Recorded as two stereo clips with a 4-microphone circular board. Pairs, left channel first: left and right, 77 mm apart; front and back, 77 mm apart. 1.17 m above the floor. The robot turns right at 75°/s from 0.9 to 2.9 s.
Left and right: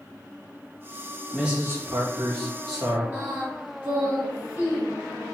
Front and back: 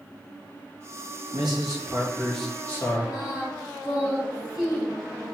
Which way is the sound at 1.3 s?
170° right.